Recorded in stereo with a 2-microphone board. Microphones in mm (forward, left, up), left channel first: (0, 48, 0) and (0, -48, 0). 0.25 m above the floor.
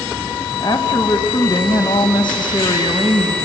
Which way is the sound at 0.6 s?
55° left (ahead or behind).